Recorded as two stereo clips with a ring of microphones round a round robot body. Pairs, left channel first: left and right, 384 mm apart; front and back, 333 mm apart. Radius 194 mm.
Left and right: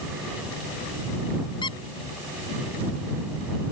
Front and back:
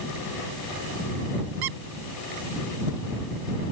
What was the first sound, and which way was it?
A squeak, 170° left.